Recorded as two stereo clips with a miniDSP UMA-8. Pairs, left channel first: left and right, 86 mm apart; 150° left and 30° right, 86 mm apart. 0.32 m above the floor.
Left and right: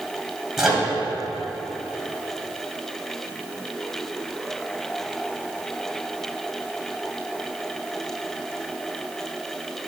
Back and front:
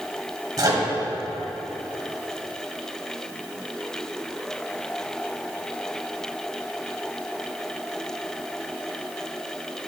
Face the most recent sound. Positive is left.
turn(degrees=-5)